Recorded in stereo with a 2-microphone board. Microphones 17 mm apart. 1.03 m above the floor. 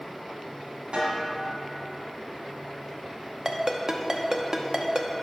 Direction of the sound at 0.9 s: 70° right (ahead or behind).